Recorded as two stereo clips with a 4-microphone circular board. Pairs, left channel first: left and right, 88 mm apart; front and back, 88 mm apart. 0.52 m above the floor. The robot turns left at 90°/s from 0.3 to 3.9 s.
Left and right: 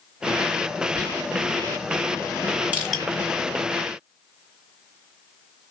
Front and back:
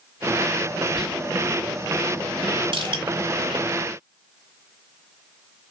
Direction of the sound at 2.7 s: 165° right.